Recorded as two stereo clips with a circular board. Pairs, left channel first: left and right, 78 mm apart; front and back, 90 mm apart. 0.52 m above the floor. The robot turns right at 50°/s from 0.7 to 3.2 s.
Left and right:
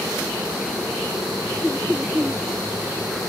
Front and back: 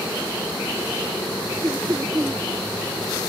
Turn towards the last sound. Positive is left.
turn(degrees=-105)